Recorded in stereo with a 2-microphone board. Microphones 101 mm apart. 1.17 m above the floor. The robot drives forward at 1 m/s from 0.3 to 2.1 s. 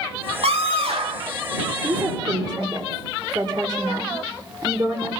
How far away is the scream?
About 2.5 m.